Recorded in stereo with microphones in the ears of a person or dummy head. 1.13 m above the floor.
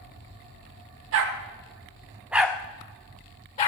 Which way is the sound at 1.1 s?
55° right (ahead or behind).